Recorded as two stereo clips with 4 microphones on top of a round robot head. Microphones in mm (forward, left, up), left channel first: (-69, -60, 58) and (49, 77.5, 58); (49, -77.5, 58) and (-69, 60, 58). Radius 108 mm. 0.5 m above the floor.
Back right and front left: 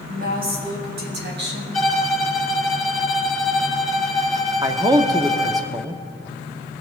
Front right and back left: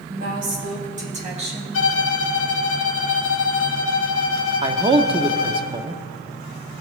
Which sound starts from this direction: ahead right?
A violin, at 1.7 s.